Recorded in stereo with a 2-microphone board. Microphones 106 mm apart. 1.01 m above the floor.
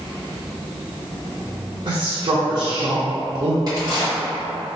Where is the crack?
40° right (ahead or behind), 2.0 m.